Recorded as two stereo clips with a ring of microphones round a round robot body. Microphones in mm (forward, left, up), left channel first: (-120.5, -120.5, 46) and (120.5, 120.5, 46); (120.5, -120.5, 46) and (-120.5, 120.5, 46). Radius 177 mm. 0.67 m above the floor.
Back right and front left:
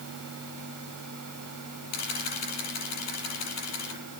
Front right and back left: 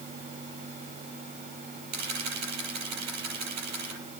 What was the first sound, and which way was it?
A camera shutter, straight behind.